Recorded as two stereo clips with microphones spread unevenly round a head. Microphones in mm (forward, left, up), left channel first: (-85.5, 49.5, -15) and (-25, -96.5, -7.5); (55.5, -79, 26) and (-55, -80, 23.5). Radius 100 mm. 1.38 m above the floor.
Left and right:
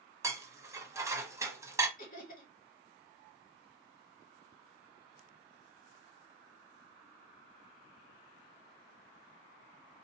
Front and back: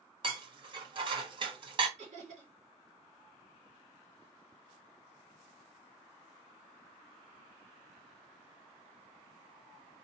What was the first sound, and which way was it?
Dishes clattering, 135° right.